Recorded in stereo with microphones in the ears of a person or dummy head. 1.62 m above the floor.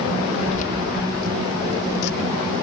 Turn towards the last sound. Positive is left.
turn(degrees=70)  # may be behind; listen again after turning